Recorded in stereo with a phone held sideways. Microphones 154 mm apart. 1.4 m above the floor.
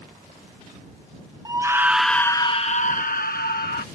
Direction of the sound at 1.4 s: 25° right (ahead or behind).